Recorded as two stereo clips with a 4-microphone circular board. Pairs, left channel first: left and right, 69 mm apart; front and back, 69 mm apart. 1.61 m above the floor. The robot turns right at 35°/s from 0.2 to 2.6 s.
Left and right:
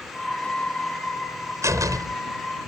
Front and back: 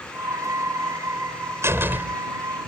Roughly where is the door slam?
Behind right.